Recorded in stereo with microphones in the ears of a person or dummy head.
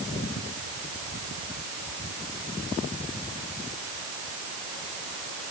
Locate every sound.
Only background noise.